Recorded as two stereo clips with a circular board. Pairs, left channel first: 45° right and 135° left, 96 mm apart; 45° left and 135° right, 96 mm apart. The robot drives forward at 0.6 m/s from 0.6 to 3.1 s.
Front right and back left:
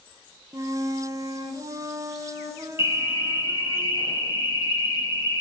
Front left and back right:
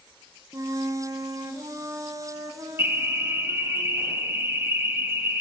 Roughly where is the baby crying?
I don't hear a baby crying.